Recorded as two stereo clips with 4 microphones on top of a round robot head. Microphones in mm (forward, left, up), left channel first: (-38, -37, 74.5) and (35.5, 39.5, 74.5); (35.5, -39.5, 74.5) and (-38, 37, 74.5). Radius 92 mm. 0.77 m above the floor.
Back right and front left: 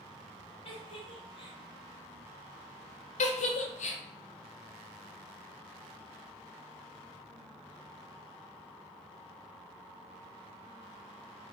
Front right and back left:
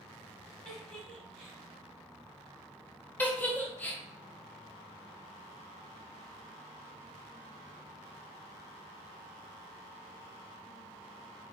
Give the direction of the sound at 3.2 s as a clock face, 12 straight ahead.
4 o'clock.